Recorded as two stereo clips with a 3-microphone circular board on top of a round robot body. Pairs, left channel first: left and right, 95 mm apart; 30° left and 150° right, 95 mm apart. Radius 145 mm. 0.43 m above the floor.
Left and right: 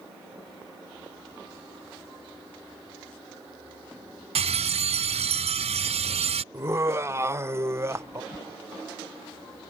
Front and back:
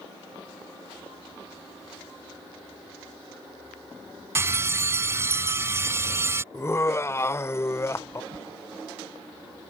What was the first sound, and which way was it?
A bell, 85° right.